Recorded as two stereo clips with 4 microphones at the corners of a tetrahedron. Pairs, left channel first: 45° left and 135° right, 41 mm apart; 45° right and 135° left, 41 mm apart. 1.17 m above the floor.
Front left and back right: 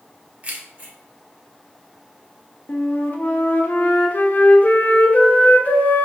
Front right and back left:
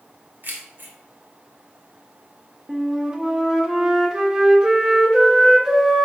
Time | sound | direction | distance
0.4 | keys jangling | 170° left | 1.5 m
2.7 | a flute | 65° left | 0.9 m